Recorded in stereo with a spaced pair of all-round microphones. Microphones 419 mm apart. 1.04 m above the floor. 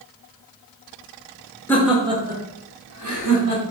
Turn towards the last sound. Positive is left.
turn(degrees=-55)  # may be behind; listen again after turning